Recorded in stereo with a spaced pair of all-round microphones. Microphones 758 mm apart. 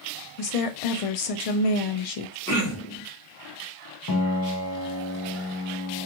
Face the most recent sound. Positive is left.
turn(degrees=30)  # may be behind; listen again after turning